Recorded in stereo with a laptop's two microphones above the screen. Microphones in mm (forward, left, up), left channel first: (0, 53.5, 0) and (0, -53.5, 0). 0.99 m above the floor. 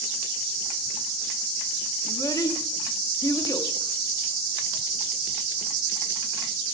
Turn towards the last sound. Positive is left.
turn(degrees=35)  # may be behind; listen again after turning